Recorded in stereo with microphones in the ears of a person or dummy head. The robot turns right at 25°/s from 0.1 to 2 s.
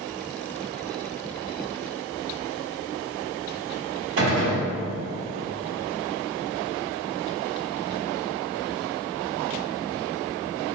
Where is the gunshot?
65° right (ahead or behind), 1.5 m.